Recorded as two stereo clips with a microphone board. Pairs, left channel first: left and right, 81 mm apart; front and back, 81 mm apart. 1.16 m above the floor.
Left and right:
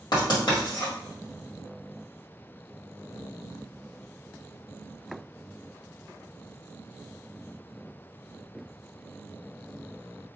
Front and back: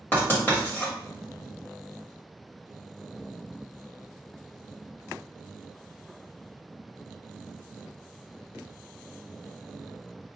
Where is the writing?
65° left, 1.9 m.